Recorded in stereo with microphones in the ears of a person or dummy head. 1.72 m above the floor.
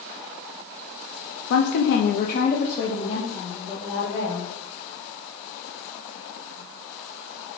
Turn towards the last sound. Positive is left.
turn(degrees=5)  # may be behind; listen again after turning